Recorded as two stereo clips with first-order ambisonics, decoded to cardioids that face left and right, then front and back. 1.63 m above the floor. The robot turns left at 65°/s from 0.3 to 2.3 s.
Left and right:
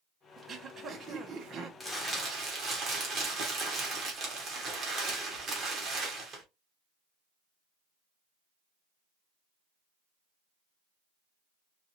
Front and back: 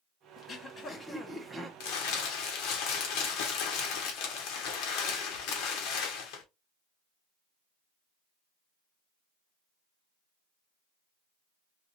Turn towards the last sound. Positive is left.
turn(degrees=-30)